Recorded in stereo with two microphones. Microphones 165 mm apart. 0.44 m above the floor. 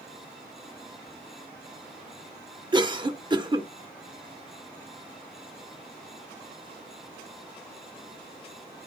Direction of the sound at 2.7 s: 25° right (ahead or behind).